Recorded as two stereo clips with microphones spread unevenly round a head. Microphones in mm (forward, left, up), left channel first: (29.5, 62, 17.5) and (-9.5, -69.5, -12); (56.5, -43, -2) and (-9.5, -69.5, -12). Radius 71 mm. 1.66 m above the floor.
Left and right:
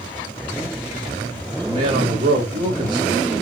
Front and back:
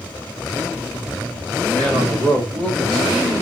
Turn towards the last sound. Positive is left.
turn(degrees=-65)